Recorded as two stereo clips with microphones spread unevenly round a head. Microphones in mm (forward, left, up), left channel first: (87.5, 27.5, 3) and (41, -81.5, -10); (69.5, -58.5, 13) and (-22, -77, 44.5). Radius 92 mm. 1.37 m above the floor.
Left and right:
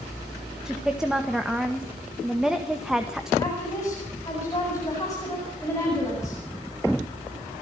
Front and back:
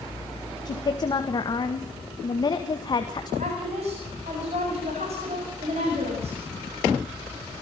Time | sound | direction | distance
0.7 | a woman speaking | 25° right | 1.8 m
3.4 | a woman speaking | 140° left | 8.5 m